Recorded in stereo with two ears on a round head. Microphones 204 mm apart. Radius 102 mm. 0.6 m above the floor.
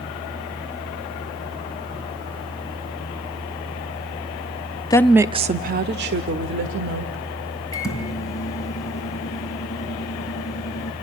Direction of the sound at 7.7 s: 15° left (ahead or behind).